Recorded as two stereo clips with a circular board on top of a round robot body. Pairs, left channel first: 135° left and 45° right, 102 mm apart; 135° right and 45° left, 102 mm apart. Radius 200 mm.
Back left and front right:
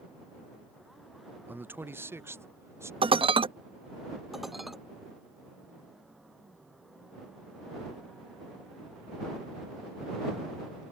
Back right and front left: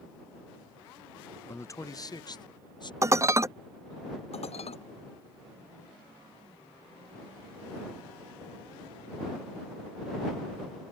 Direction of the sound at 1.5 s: 100° right.